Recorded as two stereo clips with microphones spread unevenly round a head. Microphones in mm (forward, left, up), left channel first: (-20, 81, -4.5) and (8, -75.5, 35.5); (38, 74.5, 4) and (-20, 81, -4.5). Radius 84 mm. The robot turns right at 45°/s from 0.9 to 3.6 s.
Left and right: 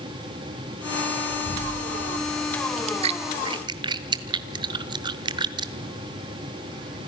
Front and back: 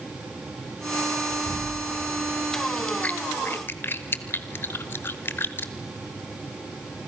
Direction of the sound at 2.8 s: 80° right.